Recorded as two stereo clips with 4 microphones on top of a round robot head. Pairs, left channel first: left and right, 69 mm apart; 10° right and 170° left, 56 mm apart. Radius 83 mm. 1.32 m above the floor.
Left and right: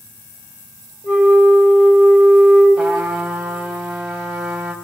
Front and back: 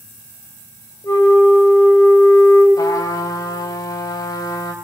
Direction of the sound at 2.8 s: 5° right.